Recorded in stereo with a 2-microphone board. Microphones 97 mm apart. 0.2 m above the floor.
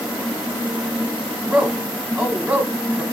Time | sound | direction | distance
1.4 | a man speaking | 10° right (ahead or behind) | 1.0 m